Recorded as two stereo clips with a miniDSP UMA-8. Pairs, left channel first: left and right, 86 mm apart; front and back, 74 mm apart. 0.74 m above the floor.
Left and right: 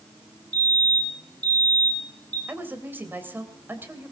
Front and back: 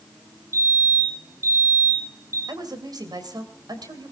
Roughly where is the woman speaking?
Behind right.